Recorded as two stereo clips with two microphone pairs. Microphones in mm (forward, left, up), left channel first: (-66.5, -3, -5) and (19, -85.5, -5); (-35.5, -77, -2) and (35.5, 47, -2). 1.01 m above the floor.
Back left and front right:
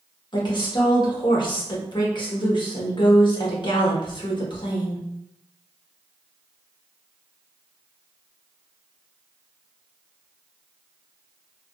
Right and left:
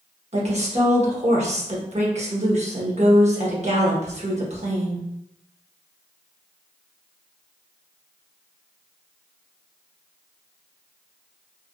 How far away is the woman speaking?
About 1.1 m.